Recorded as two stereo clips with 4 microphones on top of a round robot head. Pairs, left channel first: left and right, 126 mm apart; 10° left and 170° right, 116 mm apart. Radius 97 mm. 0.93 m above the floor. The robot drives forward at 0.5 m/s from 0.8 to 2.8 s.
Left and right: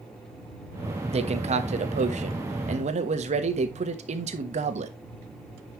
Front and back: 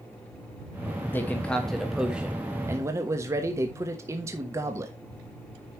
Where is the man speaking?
65° right, 1.3 m; by 4.9 s 105° right, 1.3 m.